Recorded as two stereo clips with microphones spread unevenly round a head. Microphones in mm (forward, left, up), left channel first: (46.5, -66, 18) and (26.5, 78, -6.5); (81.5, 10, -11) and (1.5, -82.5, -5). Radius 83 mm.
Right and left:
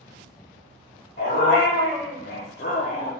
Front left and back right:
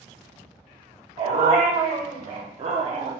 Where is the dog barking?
100° right, 2 m; by 3.1 s 120° right, 0.7 m.